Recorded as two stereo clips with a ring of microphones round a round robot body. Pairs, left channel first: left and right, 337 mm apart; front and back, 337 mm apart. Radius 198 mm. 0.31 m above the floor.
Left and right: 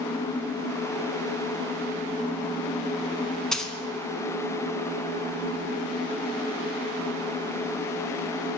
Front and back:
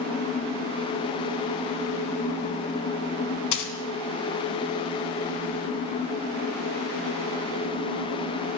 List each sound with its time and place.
3.5 s a dropped coin: straight ahead, 1.1 m